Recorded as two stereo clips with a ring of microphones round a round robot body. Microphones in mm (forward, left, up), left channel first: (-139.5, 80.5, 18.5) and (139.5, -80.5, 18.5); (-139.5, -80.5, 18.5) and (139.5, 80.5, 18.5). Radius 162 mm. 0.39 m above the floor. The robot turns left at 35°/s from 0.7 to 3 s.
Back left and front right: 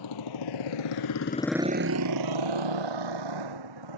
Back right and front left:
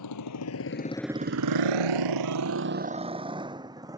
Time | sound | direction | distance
0.0 | a motorcycle | 175° left | ?